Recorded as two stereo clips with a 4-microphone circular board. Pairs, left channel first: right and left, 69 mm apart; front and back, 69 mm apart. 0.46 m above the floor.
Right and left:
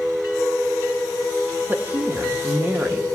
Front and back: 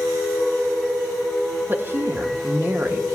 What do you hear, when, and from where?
1.7 s a woman speaking: 140° left, 0.9 m